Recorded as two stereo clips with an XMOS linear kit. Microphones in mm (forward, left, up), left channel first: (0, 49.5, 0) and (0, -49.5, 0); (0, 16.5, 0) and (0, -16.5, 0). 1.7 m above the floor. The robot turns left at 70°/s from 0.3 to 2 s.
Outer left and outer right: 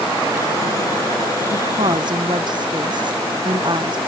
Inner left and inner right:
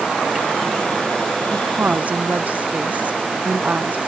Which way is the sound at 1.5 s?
95° right.